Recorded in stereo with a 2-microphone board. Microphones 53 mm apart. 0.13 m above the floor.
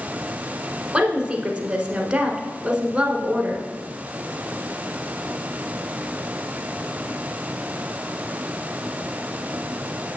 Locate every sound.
0.9 s a woman speaking: 15° right (ahead or behind), 1.1 m